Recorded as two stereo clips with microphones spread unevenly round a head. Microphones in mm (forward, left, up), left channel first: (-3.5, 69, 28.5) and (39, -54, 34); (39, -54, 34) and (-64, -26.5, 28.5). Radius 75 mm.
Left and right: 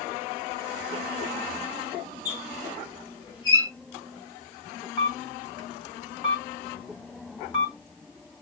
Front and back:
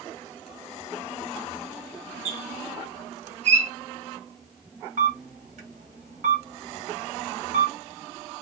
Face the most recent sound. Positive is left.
turn(degrees=165)